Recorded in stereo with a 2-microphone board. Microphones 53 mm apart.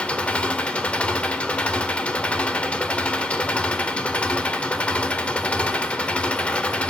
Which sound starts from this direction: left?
An engine running, at 0.0 s.